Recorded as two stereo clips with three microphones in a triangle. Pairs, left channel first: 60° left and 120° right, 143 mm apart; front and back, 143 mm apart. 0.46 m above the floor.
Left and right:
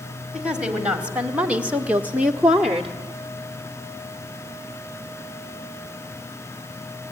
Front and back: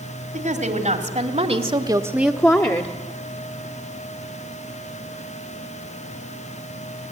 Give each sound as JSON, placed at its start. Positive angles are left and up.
{"t": 0.3, "sound": "a woman speaking", "azimuth_deg": 155, "distance_m": 3.0}